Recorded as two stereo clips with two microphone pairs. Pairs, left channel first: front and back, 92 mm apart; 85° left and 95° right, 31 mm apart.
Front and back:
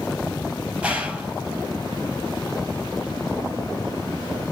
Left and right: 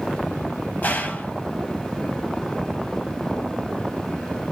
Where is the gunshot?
105° left, 1.0 m.